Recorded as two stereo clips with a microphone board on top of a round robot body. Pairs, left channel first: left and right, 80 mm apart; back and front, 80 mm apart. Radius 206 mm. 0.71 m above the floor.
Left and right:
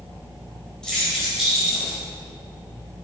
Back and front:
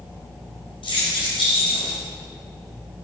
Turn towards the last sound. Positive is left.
turn(degrees=-170)